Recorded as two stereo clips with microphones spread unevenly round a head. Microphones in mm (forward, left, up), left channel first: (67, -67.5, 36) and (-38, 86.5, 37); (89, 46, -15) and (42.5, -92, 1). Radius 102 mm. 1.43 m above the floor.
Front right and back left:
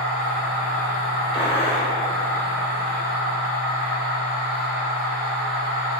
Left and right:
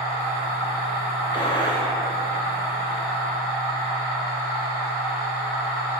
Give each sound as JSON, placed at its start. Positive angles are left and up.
{"t": 0.0, "sound": "a machine running", "azimuth_deg": -50, "distance_m": 1.7}
{"t": 1.3, "sound": "a gunshot", "azimuth_deg": 10, "distance_m": 0.6}